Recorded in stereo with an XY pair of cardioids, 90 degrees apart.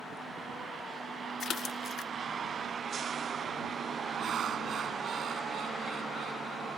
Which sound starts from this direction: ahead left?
A splash, at 1.4 s.